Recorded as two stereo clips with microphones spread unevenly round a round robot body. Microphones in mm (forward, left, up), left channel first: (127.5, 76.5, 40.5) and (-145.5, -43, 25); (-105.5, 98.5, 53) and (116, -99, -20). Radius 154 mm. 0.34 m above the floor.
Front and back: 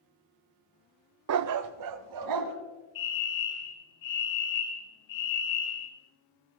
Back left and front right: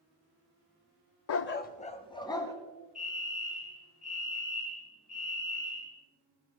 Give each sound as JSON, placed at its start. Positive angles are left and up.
{"t": 1.3, "sound": "a dog barking", "azimuth_deg": -175, "distance_m": 0.5}
{"t": 3.0, "sound": "a fire alarm", "azimuth_deg": 40, "distance_m": 8.0}